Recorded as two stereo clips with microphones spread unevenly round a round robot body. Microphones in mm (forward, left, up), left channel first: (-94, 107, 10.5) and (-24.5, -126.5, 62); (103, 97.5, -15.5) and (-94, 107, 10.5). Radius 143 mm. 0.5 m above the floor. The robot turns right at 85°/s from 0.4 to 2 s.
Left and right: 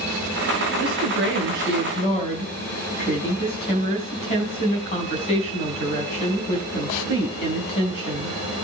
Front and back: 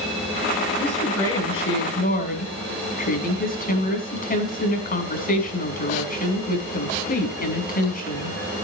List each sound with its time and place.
0.8 s a woman speaking: 65° right, 5 m; by 8.4 s 40° left, 5 m